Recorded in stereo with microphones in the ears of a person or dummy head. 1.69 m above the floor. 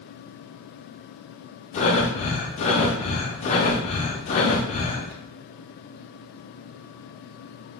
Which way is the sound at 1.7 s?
35° left (ahead or behind).